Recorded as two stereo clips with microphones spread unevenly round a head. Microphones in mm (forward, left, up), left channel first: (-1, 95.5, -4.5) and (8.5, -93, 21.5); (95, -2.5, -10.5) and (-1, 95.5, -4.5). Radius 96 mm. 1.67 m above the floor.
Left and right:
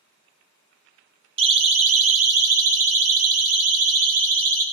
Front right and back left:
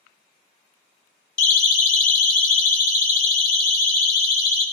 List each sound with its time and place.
1.4 s a siren: 25° right, 2 m; by 4.6 s 40° right, 5 m